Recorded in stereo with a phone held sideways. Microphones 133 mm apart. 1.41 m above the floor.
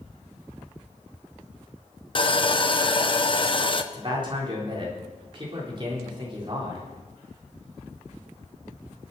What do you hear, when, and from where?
2.1 s sawing: 40° left (ahead or behind), 0.8 m
3.9 s a man speaking: 40° right (ahead or behind), 4 m